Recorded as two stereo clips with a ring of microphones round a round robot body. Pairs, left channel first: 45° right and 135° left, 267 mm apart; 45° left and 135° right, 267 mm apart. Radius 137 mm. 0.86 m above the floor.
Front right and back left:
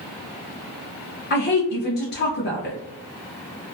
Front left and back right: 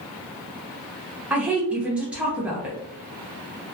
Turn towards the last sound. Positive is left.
turn(degrees=-50)